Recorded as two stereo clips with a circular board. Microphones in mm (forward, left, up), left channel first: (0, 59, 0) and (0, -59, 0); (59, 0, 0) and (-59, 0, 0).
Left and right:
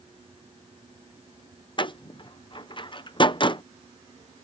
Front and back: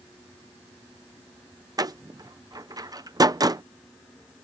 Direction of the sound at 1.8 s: 130° left.